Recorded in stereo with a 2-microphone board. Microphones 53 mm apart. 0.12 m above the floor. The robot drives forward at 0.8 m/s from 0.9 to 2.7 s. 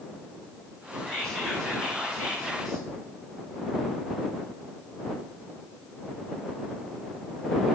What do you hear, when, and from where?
1.1 s whispering: 10° left (ahead or behind), 1.3 m